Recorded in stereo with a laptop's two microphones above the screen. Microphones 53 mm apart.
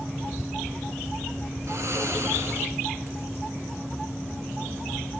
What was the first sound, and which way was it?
Snoring, 60° right (ahead or behind).